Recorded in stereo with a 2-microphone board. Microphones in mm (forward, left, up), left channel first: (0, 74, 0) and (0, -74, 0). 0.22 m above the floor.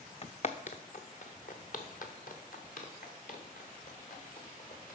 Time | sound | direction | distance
0.2 | footsteps | 45° left (ahead or behind) | 0.7 m